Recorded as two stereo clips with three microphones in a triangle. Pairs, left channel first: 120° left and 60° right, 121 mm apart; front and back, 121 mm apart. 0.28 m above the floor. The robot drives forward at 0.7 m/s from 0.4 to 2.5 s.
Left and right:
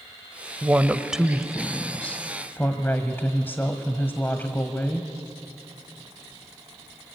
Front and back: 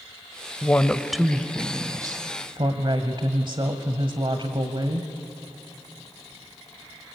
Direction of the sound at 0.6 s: 15° right.